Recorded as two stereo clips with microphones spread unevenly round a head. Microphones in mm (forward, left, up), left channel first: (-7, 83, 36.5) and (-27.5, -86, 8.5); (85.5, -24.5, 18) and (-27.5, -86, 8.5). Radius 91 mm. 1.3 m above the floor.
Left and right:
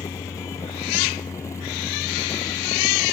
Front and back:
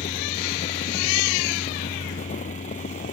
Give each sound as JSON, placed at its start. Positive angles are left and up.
{"t": 0.0, "sound": "a fan", "azimuth_deg": 10}